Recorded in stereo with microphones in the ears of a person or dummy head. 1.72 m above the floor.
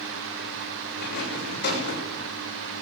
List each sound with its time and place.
1.0 s a rattle: 60° left (ahead or behind), 7.5 m